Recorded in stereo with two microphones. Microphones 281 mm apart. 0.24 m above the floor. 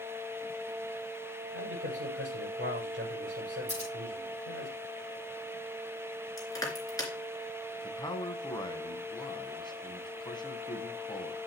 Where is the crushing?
10° left (ahead or behind), 3 m.